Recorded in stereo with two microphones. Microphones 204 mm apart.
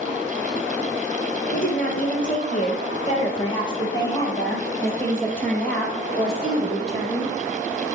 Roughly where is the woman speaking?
Left.